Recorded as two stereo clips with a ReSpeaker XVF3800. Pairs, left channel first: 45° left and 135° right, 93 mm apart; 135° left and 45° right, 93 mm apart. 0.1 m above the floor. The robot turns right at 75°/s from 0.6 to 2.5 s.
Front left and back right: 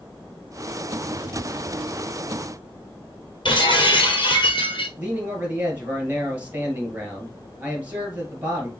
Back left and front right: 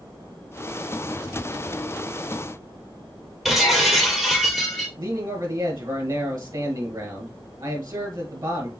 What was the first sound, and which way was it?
Breaking glass, 45° left.